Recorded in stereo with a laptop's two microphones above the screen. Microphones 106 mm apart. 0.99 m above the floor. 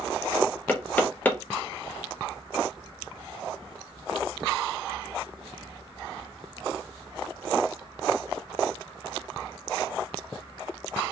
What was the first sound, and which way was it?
Knocking, 15° left (ahead or behind).